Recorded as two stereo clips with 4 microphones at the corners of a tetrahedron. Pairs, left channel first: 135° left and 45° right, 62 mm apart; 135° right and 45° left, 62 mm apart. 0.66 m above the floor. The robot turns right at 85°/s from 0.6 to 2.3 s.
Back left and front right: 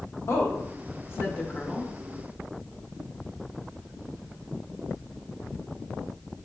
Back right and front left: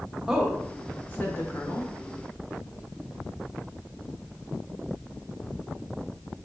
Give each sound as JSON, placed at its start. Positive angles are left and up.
{"t": 0.3, "sound": "a woman speaking", "azimuth_deg": 125, "distance_m": 1.1}